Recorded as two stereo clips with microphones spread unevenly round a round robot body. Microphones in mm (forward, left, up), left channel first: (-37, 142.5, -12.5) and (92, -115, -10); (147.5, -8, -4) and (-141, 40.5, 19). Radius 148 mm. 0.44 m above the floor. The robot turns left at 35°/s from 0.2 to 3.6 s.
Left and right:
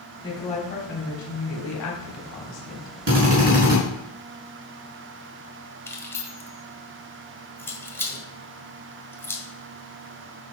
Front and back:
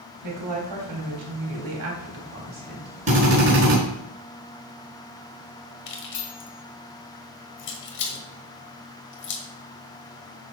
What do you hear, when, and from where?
0.2 s a woman speaking: 165° right, 3 m; by 2.9 s 100° left, 3 m
3.1 s a drill: 120° right, 5.5 m; by 3.8 s 140° right, 5.5 m
5.9 s keys jangling: 35° left, 1.6 m